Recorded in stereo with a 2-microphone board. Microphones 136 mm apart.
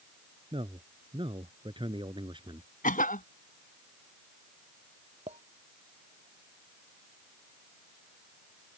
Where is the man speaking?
40° right (ahead or behind); by 2.7 s 35° right (ahead or behind).